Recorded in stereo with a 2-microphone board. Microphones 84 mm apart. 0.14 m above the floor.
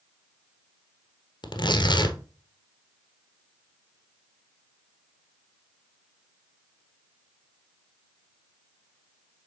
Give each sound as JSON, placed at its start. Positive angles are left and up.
{"t": 1.4, "sound": "tearing paper", "side_deg": 65, "distance_m": 1.0}